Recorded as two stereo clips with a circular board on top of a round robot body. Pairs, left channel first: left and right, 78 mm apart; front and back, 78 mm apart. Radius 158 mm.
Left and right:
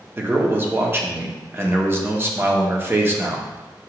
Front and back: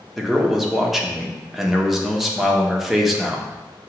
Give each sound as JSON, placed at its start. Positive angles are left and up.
{"t": 0.2, "sound": "a man speaking", "azimuth_deg": -95, "distance_m": 0.9}